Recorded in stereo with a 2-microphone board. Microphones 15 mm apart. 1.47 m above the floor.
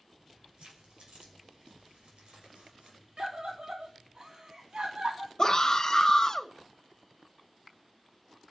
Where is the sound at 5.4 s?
35° left (ahead or behind), 2 m.